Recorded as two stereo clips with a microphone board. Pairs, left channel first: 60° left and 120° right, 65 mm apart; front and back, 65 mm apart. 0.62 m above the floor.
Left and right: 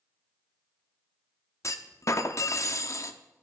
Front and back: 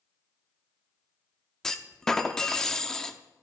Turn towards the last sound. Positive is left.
turn(degrees=80)